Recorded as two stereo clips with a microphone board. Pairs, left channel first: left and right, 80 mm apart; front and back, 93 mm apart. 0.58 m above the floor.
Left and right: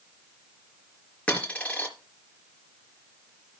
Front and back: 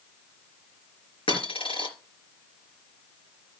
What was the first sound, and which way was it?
A dropped coin, 15° left.